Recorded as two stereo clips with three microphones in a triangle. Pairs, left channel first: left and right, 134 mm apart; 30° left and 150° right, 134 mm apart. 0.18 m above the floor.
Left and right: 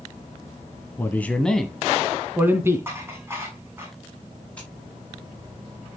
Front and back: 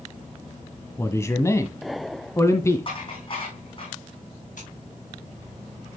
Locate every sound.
1.0 s a man speaking: 55° left, 1.1 m; by 2.9 s 30° right, 1.4 m
2.9 s dishes clattering: 20° right, 6.5 m
4.6 s scissors: 10° left, 7.5 m